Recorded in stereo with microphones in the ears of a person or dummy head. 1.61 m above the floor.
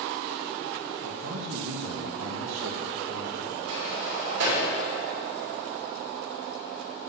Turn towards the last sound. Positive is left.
turn(degrees=-80)